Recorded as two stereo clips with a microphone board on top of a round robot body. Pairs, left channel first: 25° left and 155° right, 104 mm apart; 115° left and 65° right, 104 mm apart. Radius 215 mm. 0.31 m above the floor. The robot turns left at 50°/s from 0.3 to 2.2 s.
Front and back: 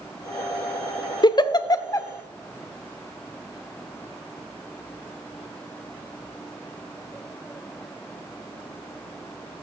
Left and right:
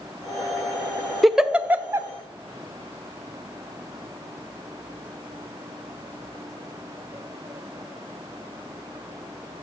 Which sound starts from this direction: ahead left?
A giggle, at 1.2 s.